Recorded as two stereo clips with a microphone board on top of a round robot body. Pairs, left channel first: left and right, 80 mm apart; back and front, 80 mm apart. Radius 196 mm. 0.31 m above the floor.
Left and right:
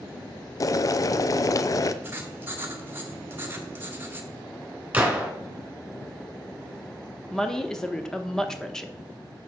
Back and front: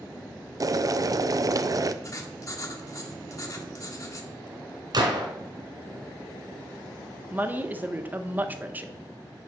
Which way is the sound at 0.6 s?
45° left.